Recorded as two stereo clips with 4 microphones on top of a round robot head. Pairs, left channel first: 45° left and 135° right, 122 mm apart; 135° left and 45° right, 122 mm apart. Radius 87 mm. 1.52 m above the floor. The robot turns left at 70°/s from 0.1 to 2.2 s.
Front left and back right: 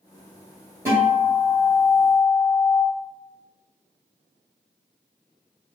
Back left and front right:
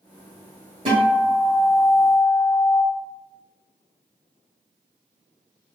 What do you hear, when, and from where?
0.8 s a guitar: 75° right, 1.4 m; by 2.8 s 170° right, 1.4 m